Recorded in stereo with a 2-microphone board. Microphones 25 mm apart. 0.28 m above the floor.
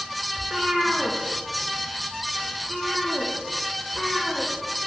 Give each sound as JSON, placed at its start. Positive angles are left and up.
{"t": 0.4, "sound": "a cat meowing", "side_deg": -35, "distance_m": 2.5}